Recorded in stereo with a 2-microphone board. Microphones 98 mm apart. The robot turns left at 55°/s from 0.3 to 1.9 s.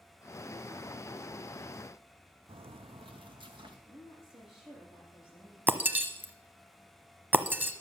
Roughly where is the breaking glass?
Centre.